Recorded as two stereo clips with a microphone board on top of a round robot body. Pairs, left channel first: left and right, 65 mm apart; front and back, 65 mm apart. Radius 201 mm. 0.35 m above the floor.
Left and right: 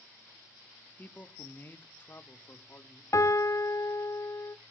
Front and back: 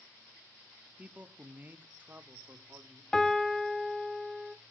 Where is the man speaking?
130° left, 1.7 m; by 3.0 s 140° left, 2.5 m.